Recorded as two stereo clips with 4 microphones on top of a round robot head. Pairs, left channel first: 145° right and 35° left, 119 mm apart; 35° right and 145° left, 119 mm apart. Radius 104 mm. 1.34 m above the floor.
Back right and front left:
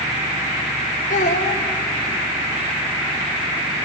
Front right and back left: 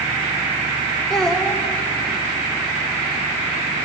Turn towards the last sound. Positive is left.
turn(degrees=-125)